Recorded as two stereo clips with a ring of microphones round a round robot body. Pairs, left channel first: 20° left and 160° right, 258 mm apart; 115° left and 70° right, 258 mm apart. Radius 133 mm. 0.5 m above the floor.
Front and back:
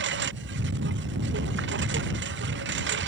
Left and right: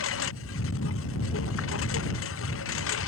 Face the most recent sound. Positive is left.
turn(degrees=155)